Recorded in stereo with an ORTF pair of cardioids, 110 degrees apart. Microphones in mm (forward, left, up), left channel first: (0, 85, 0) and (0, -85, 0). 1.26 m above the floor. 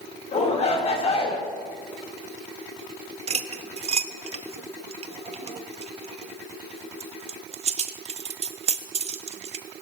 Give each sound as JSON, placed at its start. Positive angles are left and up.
{"t": 0.3, "sound": "a shout", "azimuth_deg": 40, "distance_m": 5.0}
{"t": 3.3, "sound": "cutlery clinking", "azimuth_deg": -35, "distance_m": 1.0}